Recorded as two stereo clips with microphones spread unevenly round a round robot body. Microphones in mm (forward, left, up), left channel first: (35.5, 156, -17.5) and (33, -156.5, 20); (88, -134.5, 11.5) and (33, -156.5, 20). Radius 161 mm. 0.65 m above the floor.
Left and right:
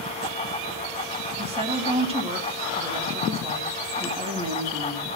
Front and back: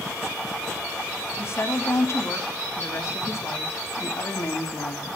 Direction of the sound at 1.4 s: 15° right.